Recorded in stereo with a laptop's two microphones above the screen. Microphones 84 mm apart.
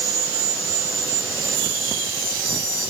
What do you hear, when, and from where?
Only background noise.